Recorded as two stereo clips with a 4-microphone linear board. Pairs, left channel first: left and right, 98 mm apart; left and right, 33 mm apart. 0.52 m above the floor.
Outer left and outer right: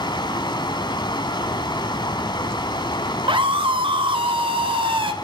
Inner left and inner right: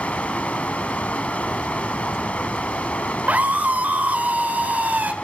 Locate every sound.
0.0 s running water: 50° left (ahead or behind), 1.4 m
3.3 s a scream: 60° right (ahead or behind), 1.8 m